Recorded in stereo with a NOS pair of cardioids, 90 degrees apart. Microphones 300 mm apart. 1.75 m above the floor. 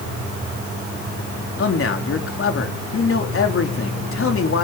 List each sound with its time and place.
1.6 s a man speaking: 45° left, 3.5 m